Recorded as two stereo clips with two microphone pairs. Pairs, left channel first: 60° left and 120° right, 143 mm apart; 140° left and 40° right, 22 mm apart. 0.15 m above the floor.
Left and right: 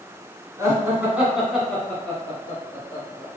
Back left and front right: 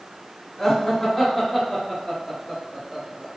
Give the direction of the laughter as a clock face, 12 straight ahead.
5 o'clock.